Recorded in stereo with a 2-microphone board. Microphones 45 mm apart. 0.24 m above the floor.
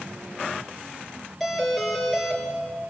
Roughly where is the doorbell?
Centre.